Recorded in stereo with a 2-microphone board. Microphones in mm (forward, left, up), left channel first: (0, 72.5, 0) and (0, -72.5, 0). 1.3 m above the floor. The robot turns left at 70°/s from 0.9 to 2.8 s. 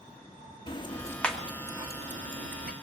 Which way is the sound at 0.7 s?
30° left (ahead or behind).